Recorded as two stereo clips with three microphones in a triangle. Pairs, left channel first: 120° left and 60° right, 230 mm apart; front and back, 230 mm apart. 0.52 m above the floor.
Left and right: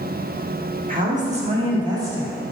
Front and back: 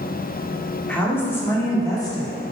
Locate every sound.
0.9 s a woman speaking: 80° right, 1.4 m; by 2.5 s 25° left, 1.1 m